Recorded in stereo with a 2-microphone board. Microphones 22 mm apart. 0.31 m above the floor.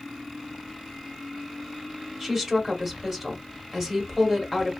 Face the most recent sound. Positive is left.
turn(degrees=-15)  # may be behind; listen again after turning